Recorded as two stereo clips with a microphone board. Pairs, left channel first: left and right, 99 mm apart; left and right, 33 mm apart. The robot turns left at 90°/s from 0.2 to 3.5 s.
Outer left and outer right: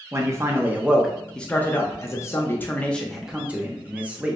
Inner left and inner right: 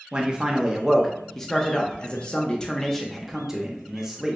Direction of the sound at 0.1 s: 30° right (ahead or behind).